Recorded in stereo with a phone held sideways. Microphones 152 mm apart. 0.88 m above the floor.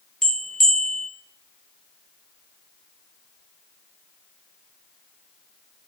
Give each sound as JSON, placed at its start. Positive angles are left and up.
{"t": 0.2, "sound": "a bell", "side_deg": 5, "distance_m": 0.6}